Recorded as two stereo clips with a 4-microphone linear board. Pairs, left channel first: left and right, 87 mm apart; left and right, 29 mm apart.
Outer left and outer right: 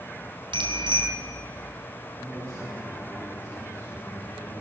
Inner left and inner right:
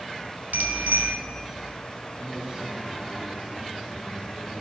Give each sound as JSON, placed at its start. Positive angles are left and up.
{"t": 0.5, "sound": "a bicycle bell", "side_deg": -75, "distance_m": 3.0}
{"t": 2.2, "sound": "a man speaking", "side_deg": -40, "distance_m": 9.5}